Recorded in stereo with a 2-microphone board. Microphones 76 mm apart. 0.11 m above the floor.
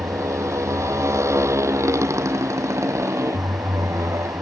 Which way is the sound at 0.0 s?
40° right (ahead or behind).